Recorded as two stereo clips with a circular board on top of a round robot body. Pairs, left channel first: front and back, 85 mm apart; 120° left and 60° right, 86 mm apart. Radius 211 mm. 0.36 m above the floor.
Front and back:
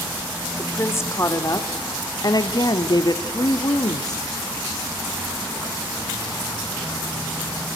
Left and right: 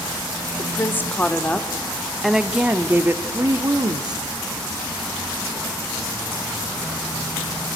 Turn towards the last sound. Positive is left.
turn(degrees=-35)